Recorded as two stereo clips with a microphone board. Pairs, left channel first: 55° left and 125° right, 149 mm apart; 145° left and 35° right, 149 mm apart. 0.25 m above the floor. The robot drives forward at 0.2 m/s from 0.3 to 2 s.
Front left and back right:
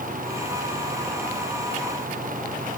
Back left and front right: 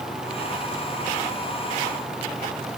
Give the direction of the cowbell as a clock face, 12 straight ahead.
No cowbell in this recording.